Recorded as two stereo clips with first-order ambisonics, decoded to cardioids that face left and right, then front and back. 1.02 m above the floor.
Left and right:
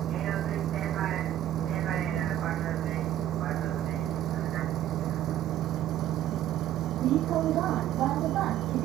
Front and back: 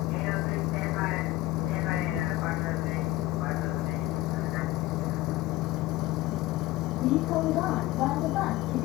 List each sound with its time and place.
0.0 s a vehicle: 35° right; by 8.8 s 40° right